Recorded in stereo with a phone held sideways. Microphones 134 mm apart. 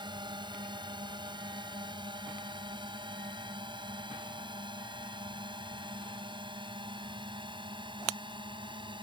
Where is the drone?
35° right (ahead or behind); by 9.1 s 40° right (ahead or behind).